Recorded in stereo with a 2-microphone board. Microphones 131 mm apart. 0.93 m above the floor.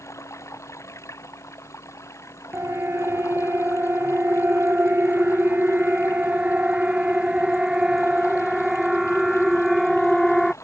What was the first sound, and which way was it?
Running water, 25° left (ahead or behind).